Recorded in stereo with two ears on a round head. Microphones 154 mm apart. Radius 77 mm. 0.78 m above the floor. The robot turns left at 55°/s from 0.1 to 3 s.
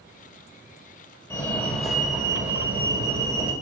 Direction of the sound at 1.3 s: 15° left (ahead or behind).